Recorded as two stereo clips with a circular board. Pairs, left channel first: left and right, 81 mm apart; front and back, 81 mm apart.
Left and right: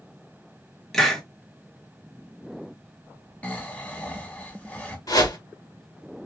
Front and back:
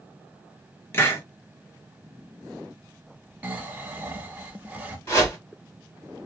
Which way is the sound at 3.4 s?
135° left.